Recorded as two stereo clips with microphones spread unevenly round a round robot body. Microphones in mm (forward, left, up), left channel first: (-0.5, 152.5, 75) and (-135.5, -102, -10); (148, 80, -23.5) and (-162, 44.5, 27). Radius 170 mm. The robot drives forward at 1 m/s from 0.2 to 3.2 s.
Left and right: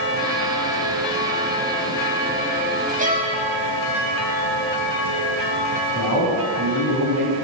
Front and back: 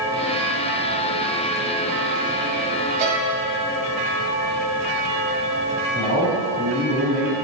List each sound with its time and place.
3.0 s a violin: 170° right, 1.1 m
5.9 s a man speaking: 125° right, 3 m